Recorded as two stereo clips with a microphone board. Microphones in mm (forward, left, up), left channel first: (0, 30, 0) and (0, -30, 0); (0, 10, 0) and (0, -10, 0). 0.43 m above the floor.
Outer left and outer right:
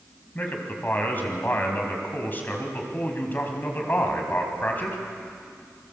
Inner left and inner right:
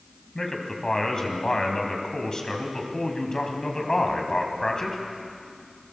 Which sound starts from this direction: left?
A man speaking, at 0.3 s.